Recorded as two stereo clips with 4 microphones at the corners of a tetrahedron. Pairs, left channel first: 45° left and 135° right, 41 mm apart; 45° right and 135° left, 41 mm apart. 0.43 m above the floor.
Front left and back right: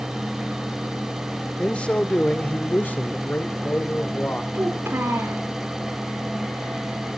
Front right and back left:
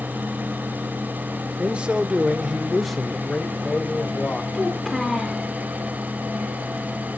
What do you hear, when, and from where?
1.6 s a man speaking: 95° left, 1.2 m; by 4.4 s 10° left, 1.6 m
4.5 s a child speaking: 130° right, 4 m